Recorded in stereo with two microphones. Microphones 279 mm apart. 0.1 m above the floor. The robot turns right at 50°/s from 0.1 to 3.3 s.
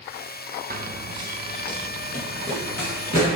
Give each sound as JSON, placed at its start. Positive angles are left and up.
{"t": 0.7, "sound": "running footsteps", "side_deg": -35, "distance_m": 0.6}